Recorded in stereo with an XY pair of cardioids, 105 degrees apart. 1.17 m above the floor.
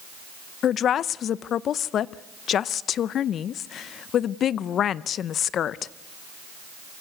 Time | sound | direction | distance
0.6 | a woman speaking | 60° left | 0.6 m